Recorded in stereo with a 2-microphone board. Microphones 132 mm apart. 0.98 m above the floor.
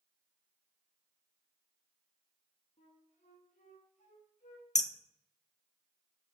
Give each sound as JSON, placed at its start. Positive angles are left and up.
{"t": 2.8, "sound": "a flute", "side_deg": 65, "distance_m": 1.9}
{"t": 4.8, "sound": "hammering", "side_deg": 65, "distance_m": 0.6}